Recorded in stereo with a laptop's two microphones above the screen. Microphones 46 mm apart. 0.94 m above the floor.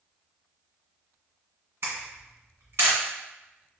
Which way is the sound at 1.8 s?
60° right (ahead or behind).